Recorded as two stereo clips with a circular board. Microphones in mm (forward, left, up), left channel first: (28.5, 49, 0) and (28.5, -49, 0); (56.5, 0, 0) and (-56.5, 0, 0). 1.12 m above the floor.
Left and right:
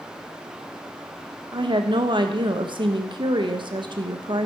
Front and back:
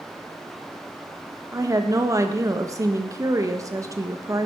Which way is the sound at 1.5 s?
120° right.